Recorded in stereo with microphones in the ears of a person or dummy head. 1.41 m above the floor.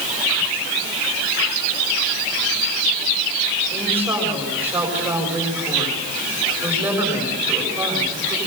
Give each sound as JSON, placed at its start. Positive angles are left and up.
{"t": 3.7, "sound": "a woman speaking", "side_deg": -10, "distance_m": 6.5}